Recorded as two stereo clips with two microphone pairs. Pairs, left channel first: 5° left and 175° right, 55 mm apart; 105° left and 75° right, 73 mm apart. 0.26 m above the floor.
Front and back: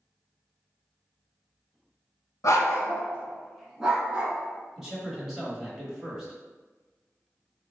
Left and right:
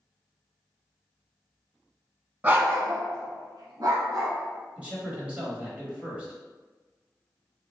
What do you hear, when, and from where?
2.4 s a dog barking: 10° right, 0.6 m; by 4.3 s 105° right, 1.0 m
4.8 s a man speaking: 105° right, 0.9 m